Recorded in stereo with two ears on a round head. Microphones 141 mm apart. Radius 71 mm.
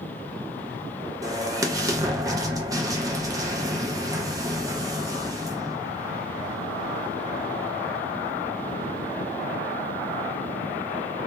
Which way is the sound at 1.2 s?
20° right (ahead or behind).